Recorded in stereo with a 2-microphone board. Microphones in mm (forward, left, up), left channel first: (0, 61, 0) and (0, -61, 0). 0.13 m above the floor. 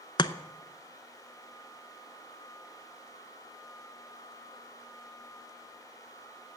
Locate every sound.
0.2 s chopping: 40° left (ahead or behind), 0.6 m